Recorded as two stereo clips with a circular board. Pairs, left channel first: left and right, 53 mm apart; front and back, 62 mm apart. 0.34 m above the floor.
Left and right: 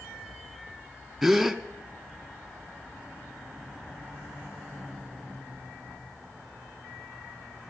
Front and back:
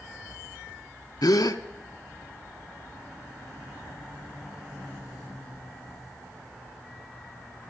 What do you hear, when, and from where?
1.2 s a gasp: 5° right, 0.6 m